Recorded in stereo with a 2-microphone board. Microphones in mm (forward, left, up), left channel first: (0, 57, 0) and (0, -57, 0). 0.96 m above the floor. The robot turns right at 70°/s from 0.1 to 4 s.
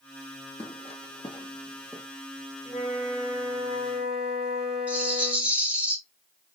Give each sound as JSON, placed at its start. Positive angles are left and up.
{"t": 0.6, "sound": "footsteps", "side_deg": 60, "distance_m": 1.9}
{"t": 2.6, "sound": "a flute", "azimuth_deg": 145, "distance_m": 2.0}
{"t": 4.9, "sound": "a rattle", "side_deg": -10, "distance_m": 1.3}